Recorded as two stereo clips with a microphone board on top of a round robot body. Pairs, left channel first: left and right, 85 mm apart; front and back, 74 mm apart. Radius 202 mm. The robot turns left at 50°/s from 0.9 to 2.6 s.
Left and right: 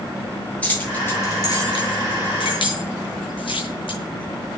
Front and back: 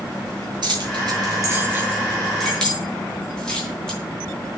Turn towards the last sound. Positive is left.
turn(degrees=80)